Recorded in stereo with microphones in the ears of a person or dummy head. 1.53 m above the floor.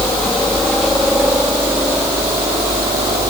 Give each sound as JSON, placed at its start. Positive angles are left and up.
{"t": 0.0, "sound": "a helicopter", "side_deg": 10}